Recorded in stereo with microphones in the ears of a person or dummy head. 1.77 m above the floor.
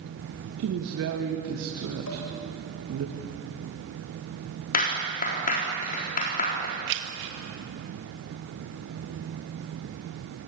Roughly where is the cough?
No cough in this recording.